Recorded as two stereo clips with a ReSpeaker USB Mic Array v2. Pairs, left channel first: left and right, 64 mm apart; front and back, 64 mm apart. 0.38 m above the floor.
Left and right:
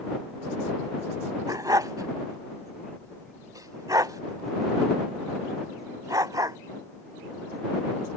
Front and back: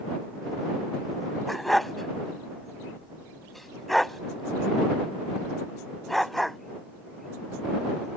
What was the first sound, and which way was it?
A dog barking, 90° right.